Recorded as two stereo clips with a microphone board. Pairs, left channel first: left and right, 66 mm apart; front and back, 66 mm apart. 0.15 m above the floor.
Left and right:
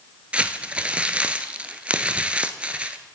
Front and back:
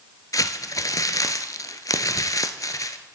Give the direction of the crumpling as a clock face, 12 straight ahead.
1 o'clock.